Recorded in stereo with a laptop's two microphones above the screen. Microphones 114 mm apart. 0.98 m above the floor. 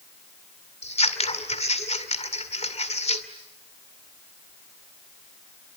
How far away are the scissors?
About 2.5 m.